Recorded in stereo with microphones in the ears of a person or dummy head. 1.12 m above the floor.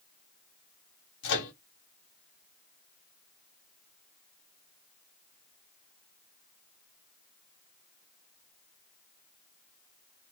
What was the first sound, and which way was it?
A microwave, 70° left (ahead or behind).